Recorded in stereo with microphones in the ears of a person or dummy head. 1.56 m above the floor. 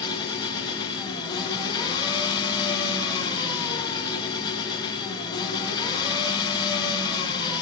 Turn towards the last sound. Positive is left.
turn(degrees=25)  # may be behind; listen again after turning